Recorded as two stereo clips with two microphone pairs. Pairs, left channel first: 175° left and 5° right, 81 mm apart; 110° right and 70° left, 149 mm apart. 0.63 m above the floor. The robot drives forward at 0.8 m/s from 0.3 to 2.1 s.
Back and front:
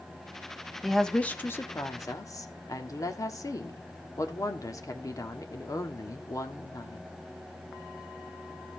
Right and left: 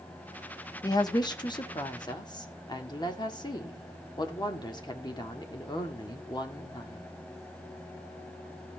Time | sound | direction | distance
0.8 | a woman speaking | 100° right | 0.9 m